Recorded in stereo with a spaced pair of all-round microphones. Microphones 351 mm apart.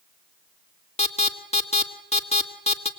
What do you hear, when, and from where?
1.0 s an alarm: 20° left (ahead or behind), 1.8 m